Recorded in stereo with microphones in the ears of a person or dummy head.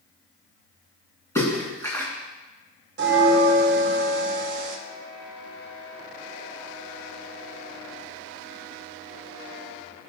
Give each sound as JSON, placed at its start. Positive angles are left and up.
{"t": 1.4, "sound": "a splash", "side_deg": 10, "distance_m": 2.5}
{"t": 3.0, "sound": "a bell", "side_deg": -60, "distance_m": 1.2}